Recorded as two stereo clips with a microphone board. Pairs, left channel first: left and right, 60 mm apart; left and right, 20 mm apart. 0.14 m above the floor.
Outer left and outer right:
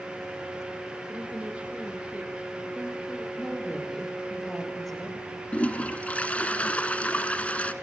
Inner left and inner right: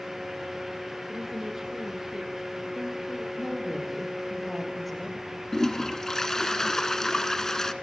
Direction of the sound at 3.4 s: 5° left (ahead or behind).